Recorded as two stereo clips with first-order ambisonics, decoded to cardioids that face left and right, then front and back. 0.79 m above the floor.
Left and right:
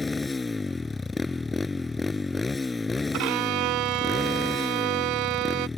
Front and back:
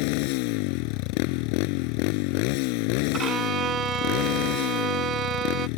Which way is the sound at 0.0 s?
10° left.